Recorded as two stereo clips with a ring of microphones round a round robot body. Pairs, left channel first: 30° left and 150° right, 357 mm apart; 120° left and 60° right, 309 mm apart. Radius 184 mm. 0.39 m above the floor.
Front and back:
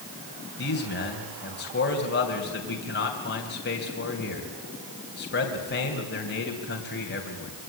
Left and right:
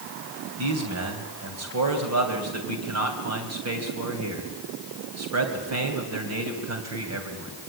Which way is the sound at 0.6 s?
30° right.